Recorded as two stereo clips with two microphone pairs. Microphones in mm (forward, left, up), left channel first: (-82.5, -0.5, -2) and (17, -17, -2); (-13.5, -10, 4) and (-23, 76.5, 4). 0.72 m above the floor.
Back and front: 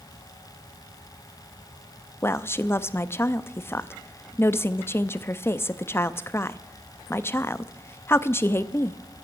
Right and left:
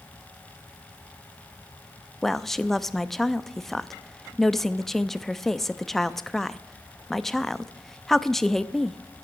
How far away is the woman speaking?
About 0.5 m.